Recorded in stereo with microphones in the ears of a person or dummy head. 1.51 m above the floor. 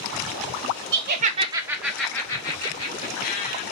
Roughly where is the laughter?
Right.